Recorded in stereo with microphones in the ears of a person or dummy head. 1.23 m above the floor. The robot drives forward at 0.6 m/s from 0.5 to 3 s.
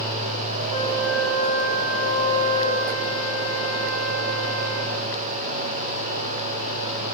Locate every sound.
0.7 s a flute: 65° right (ahead or behind), 1.3 m; by 5.1 s 55° right (ahead or behind), 1.5 m